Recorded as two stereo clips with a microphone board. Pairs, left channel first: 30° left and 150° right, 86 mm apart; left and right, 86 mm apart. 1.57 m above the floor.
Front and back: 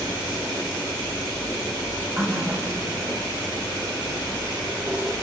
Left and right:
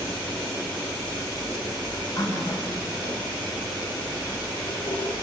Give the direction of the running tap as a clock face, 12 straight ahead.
7 o'clock.